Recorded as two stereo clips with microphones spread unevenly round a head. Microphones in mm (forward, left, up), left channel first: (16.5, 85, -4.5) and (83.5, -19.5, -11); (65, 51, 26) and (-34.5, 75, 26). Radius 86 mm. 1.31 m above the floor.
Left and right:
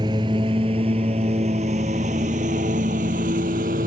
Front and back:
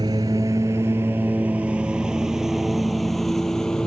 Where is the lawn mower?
125° right; by 3.9 s 100° right.